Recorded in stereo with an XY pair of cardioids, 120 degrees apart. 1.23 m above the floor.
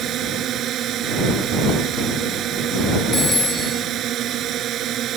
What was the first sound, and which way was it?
A drone, 60° right.